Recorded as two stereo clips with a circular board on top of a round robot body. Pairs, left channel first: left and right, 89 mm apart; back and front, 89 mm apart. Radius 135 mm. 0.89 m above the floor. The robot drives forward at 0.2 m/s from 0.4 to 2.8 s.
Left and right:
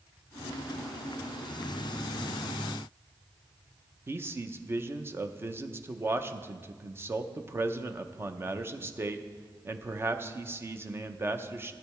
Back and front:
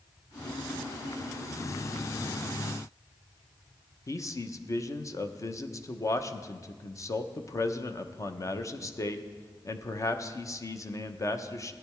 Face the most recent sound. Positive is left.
turn(degrees=-145)